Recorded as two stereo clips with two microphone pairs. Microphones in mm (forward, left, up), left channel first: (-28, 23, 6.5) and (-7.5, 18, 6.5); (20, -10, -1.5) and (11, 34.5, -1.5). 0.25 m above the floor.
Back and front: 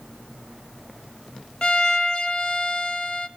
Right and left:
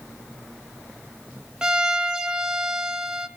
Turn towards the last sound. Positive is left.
turn(degrees=160)